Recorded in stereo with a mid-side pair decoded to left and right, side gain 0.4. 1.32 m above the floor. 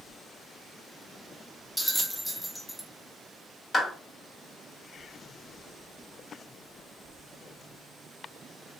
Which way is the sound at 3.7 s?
40° left.